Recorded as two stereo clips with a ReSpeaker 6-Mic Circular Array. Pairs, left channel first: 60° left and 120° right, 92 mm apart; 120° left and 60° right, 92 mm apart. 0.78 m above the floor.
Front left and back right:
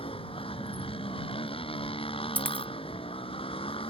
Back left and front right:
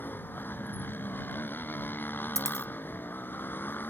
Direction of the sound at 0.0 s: 50° left.